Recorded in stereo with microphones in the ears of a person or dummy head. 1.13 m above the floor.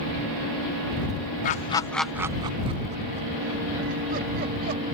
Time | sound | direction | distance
1.4 | laughter | 45° left (ahead or behind) | ?